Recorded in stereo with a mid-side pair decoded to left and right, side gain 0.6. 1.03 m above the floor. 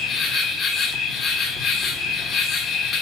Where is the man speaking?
I don't hear a man speaking.